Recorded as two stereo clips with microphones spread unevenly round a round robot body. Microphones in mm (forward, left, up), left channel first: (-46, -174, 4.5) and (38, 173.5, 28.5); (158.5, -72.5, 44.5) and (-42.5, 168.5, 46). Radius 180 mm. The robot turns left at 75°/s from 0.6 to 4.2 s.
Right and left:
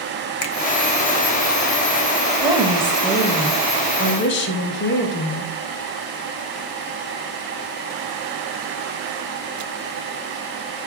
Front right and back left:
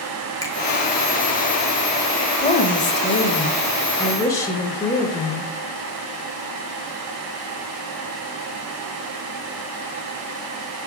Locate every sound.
0.4 s a finger snap: 125° right, 1.0 m
2.4 s a woman speaking: 10° left, 1.1 m; by 5.5 s 125° right, 1.1 m